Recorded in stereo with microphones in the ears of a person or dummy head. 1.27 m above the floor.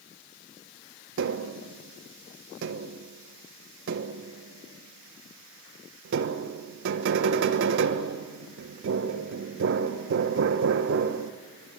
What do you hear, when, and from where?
1.2 s tapping: 55° right (ahead or behind), 1.1 m